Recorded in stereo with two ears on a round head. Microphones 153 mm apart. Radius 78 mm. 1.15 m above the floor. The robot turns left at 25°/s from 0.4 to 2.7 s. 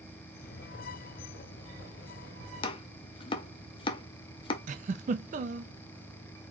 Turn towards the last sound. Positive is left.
turn(degrees=-45)  # may be behind; listen again after turning